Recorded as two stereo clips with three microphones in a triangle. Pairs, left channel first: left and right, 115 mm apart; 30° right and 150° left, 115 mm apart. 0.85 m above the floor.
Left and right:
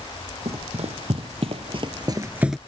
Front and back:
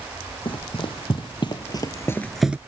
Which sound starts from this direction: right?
Running footsteps, at 0.5 s.